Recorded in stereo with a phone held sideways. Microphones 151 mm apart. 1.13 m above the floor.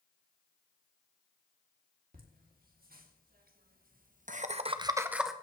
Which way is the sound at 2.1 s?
75° right (ahead or behind).